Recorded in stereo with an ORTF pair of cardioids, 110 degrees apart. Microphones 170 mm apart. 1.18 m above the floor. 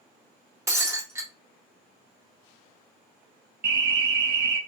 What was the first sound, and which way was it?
Breaking glass, 15° right.